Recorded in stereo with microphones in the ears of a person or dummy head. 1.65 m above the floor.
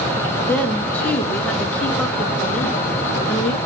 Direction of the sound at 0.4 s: 10° left (ahead or behind).